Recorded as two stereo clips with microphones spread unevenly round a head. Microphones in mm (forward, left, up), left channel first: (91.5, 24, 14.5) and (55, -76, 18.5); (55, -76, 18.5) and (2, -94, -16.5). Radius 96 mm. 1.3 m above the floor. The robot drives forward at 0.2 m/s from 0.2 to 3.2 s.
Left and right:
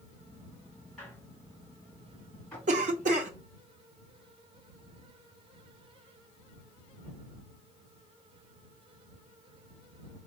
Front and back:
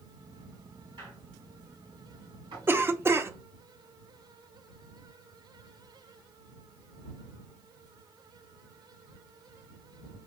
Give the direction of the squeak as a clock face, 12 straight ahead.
7 o'clock.